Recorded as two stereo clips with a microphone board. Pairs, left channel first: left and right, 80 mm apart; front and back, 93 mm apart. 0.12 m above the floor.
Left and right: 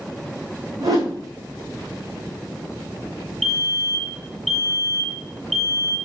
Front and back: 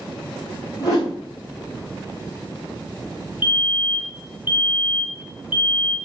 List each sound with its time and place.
0.8 s a whoosh: 50° right, 4 m
3.4 s a fire alarm: 5° left, 4 m